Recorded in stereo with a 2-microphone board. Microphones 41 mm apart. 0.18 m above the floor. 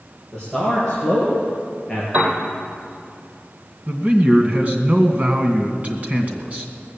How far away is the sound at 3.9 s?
About 1.9 m.